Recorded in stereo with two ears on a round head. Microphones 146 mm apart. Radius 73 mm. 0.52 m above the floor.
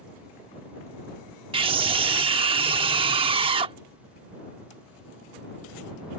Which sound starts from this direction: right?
A scream, at 1.5 s.